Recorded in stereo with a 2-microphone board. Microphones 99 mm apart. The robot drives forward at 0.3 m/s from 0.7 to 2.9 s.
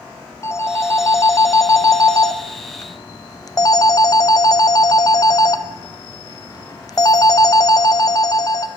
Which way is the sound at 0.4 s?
30° left (ahead or behind).